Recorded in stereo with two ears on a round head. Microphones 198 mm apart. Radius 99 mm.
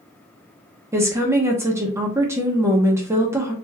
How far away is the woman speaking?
About 0.9 m.